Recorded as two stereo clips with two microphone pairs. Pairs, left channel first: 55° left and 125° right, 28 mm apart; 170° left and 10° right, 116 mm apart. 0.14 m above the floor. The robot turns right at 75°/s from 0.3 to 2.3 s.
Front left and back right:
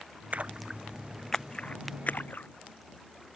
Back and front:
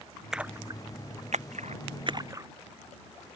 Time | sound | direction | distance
0.3 | a splash | 95° right | ?